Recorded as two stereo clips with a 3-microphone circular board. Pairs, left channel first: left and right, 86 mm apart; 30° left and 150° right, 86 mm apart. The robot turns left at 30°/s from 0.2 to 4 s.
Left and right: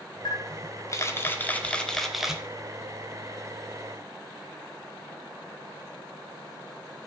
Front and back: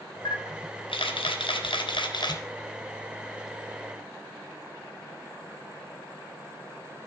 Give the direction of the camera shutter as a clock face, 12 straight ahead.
10 o'clock.